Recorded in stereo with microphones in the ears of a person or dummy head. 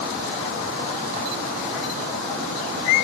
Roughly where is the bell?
No bell in this recording.